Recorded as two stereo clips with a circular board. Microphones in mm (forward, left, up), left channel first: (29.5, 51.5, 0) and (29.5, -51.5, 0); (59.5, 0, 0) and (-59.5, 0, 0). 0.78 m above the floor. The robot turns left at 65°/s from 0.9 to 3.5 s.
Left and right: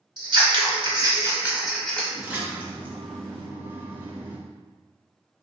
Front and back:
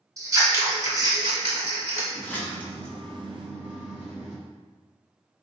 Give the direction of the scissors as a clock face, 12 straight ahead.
4 o'clock.